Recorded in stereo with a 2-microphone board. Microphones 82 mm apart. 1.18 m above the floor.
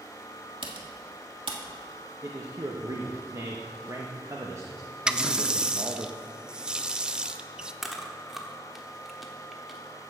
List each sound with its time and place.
0.6 s typing on a keyboard: 75° right (ahead or behind), 1.5 m
2.2 s a man speaking: 40° right (ahead or behind), 0.9 m
5.1 s a running tap: 10° right (ahead or behind), 0.5 m
7.8 s chewing: centre (ahead or behind), 1.2 m